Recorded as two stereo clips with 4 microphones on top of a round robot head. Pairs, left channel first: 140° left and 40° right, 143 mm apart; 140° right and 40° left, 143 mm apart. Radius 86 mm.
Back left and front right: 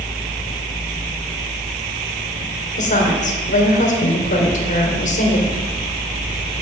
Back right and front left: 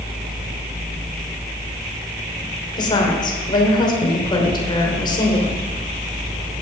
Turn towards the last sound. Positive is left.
turn(degrees=165)